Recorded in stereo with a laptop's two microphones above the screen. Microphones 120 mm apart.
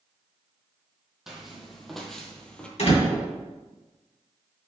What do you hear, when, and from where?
1.3 s footsteps: 5° right (ahead or behind), 2.5 m; by 2.7 s 10° left (ahead or behind), 1.7 m
2.8 s a door slam: 65° left (ahead or behind), 3.5 m